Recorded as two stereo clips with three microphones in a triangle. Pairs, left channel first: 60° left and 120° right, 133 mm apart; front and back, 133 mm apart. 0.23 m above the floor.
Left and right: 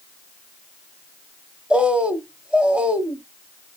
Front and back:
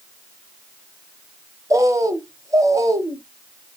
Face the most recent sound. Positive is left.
turn(degrees=170)